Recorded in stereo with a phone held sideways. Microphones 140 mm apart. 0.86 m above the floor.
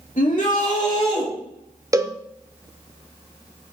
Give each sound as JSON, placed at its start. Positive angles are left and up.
{"t": 0.2, "sound": "a shout", "side_deg": 65, "distance_m": 2.0}
{"t": 1.9, "sound": "a cowbell", "side_deg": -25, "distance_m": 0.7}